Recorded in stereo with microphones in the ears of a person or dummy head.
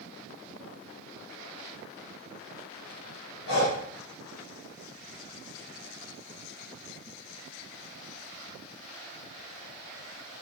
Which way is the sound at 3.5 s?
75° left (ahead or behind).